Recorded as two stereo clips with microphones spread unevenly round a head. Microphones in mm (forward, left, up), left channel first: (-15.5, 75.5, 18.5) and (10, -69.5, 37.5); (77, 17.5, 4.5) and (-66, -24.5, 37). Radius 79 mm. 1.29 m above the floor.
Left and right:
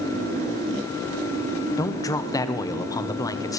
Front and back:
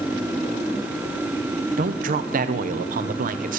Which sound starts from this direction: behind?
A man speaking, at 1.8 s.